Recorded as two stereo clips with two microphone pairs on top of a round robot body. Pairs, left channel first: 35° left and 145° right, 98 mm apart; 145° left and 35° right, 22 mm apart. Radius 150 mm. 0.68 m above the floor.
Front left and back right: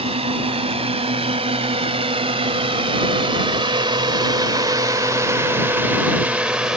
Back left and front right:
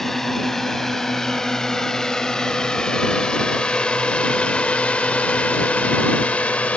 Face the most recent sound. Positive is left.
turn(degrees=135)